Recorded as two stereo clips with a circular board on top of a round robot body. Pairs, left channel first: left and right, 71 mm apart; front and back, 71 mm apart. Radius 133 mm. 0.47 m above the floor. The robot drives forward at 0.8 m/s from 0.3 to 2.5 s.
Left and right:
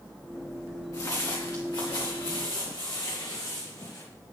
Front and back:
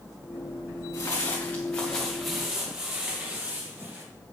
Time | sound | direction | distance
0.9 | footsteps | 45° left | 3.5 m